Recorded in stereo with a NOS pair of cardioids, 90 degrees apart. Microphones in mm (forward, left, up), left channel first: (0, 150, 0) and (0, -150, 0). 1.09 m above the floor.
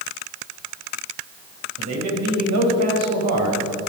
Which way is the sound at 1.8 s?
60° right.